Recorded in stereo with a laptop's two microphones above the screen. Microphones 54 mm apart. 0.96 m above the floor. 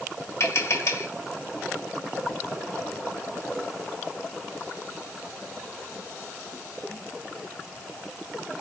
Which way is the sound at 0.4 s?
60° left (ahead or behind).